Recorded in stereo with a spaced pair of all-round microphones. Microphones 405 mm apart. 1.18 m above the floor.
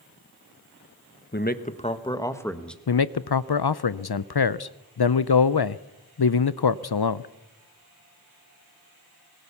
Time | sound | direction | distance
1.3 | a man speaking | 25° left (ahead or behind) | 1.2 m
2.9 | a man speaking | 75° left (ahead or behind) | 0.5 m